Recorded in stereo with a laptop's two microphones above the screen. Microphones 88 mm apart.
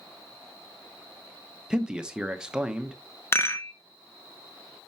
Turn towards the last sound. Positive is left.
turn(degrees=30)  # may be behind; listen again after turning